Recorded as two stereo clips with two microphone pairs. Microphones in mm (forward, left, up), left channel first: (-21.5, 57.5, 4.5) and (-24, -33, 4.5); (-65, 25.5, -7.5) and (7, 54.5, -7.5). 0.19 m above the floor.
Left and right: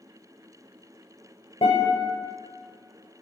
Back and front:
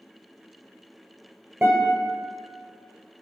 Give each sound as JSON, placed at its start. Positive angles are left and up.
{"t": 1.6, "sound": "a guitar", "azimuth_deg": 95, "distance_m": 1.2}